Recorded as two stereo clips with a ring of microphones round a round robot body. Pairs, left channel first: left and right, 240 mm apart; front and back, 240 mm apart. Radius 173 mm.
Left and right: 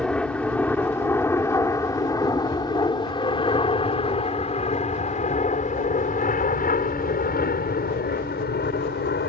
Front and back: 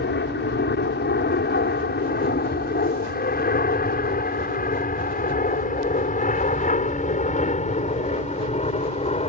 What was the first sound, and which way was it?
An aircraft, 5° left.